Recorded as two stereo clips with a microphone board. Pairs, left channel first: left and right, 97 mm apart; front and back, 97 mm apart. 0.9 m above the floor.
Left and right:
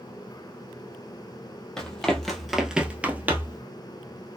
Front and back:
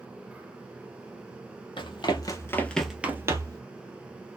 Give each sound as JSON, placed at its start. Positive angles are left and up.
{"t": 1.8, "sound": "running footsteps", "azimuth_deg": 10, "distance_m": 1.5}